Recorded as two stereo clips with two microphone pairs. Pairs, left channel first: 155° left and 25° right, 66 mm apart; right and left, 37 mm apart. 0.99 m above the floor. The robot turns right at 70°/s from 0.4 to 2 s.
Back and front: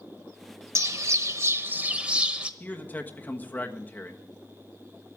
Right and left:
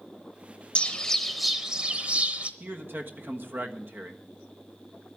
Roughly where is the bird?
Ahead right.